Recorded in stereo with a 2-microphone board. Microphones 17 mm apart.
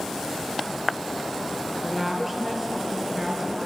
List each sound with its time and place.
1.8 s a woman speaking: 15° right (ahead or behind), 3.5 m